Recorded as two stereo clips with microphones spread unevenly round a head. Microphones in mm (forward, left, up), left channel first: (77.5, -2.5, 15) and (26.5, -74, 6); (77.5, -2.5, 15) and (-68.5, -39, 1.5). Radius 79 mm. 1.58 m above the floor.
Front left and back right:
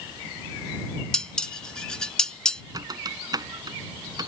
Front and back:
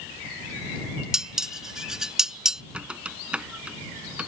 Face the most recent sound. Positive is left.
turn(degrees=-80)